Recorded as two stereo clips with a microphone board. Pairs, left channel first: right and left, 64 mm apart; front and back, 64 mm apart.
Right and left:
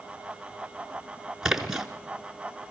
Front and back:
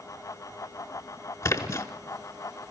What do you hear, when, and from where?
1.4 s a splash: 10° left, 1.0 m